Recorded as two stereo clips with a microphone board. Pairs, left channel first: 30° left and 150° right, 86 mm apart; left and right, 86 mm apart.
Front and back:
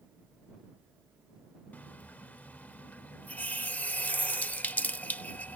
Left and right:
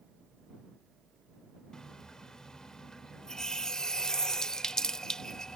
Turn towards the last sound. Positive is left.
turn(degrees=25)